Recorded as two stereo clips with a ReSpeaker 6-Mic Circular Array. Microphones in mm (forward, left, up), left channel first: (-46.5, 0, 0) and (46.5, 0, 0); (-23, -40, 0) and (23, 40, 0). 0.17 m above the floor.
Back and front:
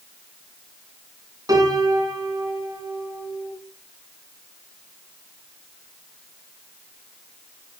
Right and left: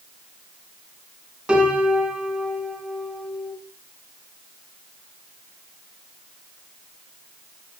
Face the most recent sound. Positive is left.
turn(degrees=-15)